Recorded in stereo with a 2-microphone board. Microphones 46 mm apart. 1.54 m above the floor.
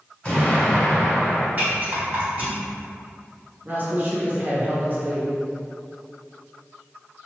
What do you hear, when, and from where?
0.2 s an explosion: 20° left (ahead or behind), 1.5 m
1.6 s a rattle: 35° right (ahead or behind), 1.8 m
3.6 s a woman speaking: 40° right (ahead or behind), 0.9 m